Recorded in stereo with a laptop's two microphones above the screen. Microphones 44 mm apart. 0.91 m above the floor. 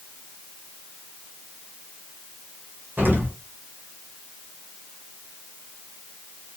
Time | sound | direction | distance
3.0 | an explosion | 45° right (ahead or behind) | 0.9 m